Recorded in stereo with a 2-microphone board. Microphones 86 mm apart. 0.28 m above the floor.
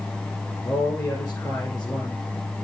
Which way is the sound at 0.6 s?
45° left (ahead or behind).